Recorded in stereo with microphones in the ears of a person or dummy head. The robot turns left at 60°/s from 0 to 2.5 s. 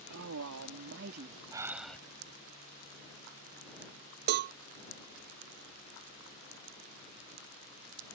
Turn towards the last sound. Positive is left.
turn(degrees=-55)  # may be behind; listen again after turning